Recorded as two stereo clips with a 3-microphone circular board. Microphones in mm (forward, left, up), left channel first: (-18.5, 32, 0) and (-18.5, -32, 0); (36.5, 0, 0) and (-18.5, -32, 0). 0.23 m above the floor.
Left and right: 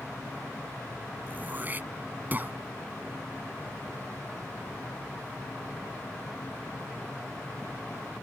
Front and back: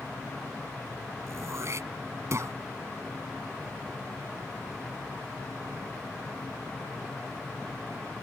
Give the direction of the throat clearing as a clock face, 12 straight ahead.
5 o'clock.